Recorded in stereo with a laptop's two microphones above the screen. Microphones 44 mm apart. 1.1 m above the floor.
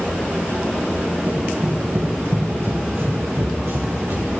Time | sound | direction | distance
1.3 | running footsteps | 45° right (ahead or behind) | 3 m